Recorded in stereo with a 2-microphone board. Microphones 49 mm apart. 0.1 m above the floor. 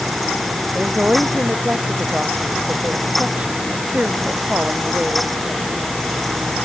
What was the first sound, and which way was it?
A woman speaking, 25° right (ahead or behind).